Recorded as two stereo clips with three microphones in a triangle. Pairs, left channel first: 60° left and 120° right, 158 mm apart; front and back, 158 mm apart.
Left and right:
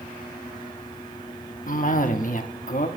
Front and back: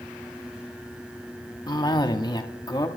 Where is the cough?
60° left, 1.3 m.